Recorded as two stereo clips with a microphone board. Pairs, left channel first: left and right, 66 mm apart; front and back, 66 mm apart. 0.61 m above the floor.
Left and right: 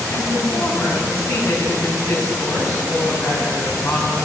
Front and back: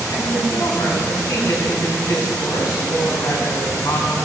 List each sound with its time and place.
0.1 s a woman speaking: 50° left, 5 m